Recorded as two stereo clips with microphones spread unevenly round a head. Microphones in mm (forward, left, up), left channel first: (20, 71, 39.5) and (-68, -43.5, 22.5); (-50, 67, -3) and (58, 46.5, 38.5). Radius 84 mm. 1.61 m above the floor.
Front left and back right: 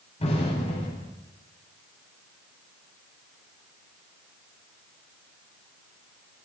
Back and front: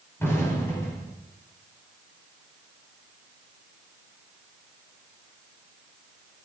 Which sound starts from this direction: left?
An explosion, at 0.2 s.